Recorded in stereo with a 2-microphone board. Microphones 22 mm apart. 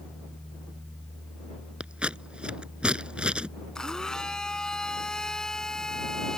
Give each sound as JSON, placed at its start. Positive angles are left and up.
{"t": 1.8, "sound": "scissors", "side_deg": -50}
{"t": 3.8, "sound": "a blender", "side_deg": 30}